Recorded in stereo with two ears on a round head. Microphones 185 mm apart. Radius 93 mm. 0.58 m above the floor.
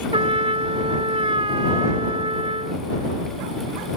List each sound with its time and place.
0.1 s a trumpet: 25° right (ahead or behind)